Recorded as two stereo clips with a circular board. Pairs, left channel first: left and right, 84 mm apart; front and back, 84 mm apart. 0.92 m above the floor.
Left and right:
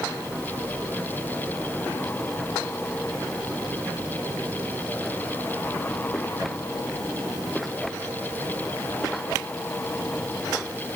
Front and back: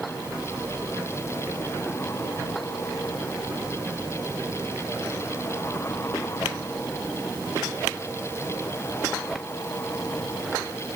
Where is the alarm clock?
No alarm clock in this recording.